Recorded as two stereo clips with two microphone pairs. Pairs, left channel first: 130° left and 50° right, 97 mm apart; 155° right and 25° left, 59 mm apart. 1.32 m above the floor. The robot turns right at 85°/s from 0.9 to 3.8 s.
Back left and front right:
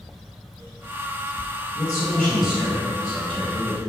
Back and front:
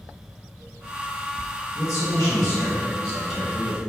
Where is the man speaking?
165° left, 1.2 m; by 3.8 s 20° right, 1.2 m.